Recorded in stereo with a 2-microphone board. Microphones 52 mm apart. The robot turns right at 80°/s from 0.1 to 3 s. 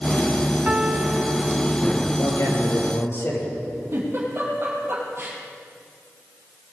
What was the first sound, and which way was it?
A piano, 135° right.